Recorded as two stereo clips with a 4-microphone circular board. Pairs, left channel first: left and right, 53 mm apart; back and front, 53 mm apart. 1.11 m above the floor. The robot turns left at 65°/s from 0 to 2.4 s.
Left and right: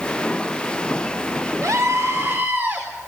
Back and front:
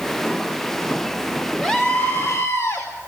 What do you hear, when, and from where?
1.6 s a scream: 100° right, 4 m; by 2.9 s 150° right, 4 m